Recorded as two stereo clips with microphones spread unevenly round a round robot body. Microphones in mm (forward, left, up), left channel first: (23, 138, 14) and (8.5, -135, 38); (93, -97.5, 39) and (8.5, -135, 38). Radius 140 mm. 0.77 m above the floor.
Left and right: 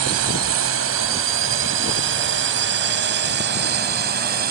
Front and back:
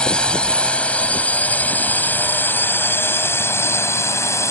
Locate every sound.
0.0 s a drone: 55° right; by 4.5 s 35° right